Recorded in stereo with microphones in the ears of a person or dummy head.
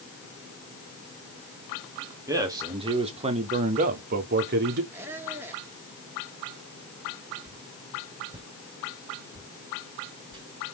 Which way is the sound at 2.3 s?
20° right (ahead or behind).